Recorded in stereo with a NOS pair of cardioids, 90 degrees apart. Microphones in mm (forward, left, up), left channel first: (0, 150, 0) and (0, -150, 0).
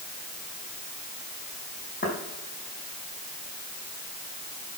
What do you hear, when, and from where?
2.0 s footsteps: 30° left, 5 m